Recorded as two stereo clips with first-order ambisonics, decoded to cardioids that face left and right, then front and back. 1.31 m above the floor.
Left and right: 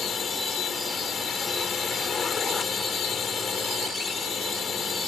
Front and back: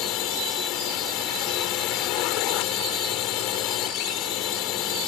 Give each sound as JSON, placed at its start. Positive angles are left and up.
{"t": 0.0, "sound": "a drone", "azimuth_deg": 25}